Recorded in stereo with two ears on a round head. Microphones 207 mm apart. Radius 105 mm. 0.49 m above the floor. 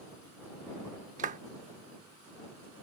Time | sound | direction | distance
1.2 | a clap | 35° right (ahead or behind) | ?